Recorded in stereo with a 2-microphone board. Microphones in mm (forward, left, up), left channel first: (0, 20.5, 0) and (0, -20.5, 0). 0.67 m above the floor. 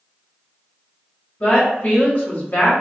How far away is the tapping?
I don't hear tapping.